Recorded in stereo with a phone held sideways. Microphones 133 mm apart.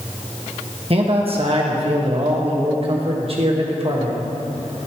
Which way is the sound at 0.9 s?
45° right (ahead or behind).